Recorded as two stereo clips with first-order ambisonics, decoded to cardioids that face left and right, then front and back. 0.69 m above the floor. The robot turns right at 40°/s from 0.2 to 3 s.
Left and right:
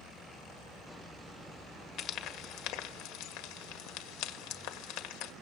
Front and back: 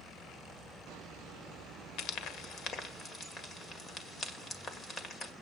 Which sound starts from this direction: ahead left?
Frying, at 2.0 s.